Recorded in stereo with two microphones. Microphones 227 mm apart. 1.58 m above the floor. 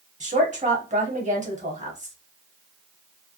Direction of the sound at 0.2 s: 35° right (ahead or behind).